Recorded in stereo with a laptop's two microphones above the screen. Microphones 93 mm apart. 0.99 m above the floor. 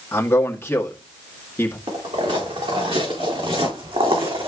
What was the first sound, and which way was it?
A man speaking, 20° left (ahead or behind).